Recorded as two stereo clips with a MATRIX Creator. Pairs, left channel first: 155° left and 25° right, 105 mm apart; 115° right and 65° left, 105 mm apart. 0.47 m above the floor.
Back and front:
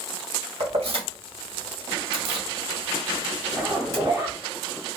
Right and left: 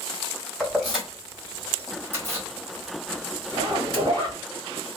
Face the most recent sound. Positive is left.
turn(degrees=30)